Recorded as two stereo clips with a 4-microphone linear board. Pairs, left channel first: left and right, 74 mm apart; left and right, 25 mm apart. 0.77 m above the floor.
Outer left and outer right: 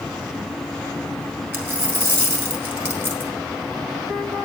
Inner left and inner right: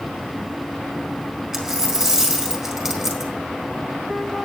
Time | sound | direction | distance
1.5 | a dropped coin | 30° right (ahead or behind) | 2 m